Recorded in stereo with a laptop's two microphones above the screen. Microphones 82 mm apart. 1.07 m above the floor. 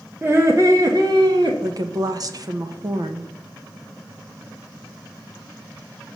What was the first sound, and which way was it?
Laughter, 20° right (ahead or behind).